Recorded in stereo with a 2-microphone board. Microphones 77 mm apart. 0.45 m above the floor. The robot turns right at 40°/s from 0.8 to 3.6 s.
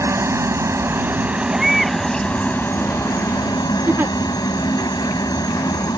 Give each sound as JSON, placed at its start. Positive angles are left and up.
{"t": 0.0, "sound": "a helicopter", "azimuth_deg": -40}
{"t": 1.5, "sound": "a baby crying", "side_deg": -10}
{"t": 3.9, "sound": "a giggle", "side_deg": -30}